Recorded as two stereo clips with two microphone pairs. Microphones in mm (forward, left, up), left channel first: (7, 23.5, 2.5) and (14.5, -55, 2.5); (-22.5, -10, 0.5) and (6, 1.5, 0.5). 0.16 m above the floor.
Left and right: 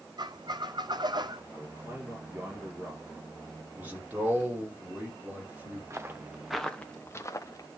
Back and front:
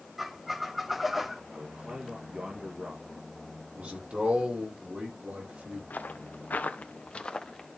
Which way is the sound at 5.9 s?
135° right.